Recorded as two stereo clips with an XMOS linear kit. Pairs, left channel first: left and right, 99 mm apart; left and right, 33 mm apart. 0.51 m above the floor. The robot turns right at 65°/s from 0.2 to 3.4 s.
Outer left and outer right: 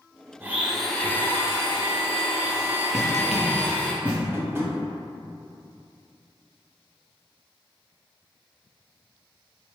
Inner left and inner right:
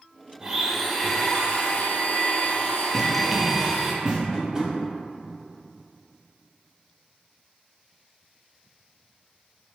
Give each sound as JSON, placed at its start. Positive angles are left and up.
{"t": 0.4, "sound": "a blender", "azimuth_deg": -30, "distance_m": 0.5}
{"t": 2.9, "sound": "running footsteps", "side_deg": -5, "distance_m": 0.7}
{"t": 4.3, "sound": "tapping", "side_deg": -25, "distance_m": 0.6}